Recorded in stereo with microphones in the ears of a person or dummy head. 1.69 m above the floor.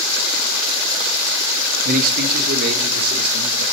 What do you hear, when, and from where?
1.9 s a man speaking: 50° right (ahead or behind), 1.9 m; by 3.6 s 55° right (ahead or behind), 3.5 m